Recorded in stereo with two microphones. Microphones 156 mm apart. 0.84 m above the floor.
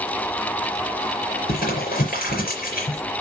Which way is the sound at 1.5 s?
65° left (ahead or behind).